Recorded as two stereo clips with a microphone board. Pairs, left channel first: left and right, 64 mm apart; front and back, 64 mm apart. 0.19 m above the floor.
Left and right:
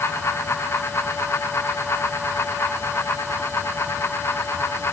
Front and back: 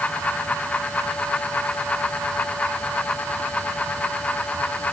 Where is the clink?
No clink in this recording.